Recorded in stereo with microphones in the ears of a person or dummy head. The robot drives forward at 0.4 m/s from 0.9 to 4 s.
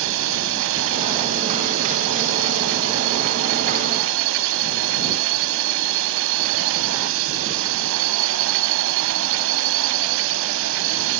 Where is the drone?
70° right (ahead or behind); by 11.2 s 75° right (ahead or behind).